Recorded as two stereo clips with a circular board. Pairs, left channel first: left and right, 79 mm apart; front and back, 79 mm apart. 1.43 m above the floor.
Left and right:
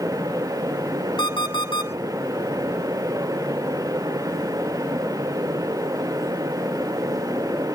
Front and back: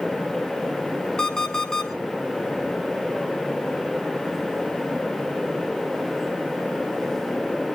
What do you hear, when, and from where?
1.2 s an alarm clock: 80° left, 4 m